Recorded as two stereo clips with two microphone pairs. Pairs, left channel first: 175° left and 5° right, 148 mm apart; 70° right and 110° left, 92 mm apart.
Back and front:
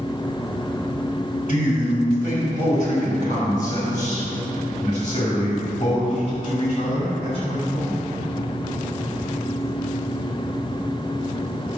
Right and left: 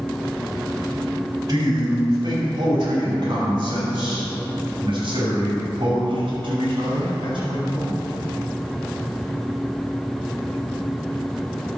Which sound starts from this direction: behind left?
A man speaking, at 1.5 s.